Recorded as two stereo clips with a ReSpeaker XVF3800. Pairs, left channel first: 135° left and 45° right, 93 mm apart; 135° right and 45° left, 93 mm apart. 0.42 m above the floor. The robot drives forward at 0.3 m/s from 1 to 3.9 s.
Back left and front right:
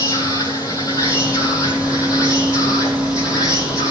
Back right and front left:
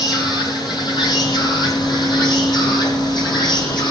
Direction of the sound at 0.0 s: 170° right.